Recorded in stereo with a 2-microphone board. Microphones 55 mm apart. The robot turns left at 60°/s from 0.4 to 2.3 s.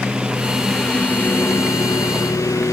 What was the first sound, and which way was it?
A lawn mower, 165° right.